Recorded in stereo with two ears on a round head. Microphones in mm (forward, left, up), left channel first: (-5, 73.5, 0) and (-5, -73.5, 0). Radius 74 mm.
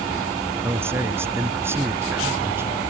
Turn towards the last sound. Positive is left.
turn(degrees=-15)  # may be behind; listen again after turning